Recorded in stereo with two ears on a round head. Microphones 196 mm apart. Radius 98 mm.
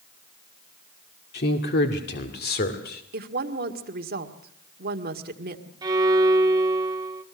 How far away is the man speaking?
About 1.9 m.